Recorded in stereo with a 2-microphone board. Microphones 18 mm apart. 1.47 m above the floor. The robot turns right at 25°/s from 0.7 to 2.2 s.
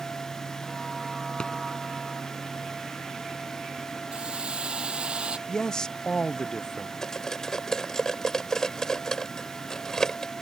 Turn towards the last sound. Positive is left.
turn(degrees=30)  # may be behind; listen again after turning